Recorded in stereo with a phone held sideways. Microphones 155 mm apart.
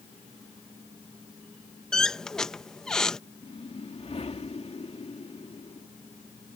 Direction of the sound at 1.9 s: 5° left (ahead or behind).